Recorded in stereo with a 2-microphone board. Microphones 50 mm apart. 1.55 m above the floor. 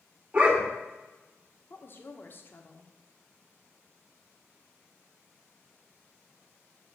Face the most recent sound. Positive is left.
turn(degrees=45)  # may be behind; listen again after turning